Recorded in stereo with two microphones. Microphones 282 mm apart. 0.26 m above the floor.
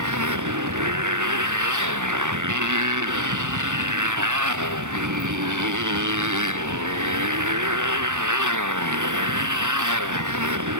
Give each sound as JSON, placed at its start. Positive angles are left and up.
{"t": 0.0, "sound": "a motorcycle", "side_deg": -80}